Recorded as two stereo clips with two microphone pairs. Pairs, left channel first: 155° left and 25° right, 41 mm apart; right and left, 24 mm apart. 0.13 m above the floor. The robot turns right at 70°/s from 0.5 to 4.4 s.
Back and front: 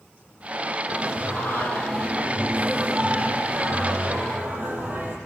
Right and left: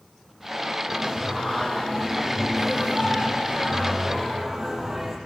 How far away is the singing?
About 4.5 m.